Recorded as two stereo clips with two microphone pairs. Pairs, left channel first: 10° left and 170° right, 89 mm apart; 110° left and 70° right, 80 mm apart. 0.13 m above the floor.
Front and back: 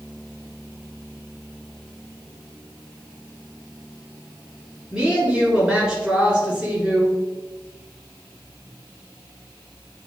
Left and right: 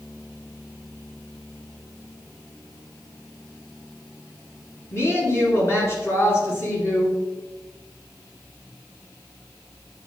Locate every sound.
4.9 s a woman speaking: 120° left, 1.9 m